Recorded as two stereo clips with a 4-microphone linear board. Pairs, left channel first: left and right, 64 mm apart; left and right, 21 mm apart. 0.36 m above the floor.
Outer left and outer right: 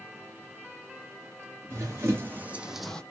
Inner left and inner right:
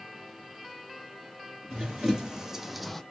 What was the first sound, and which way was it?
Running footsteps, 45° right (ahead or behind).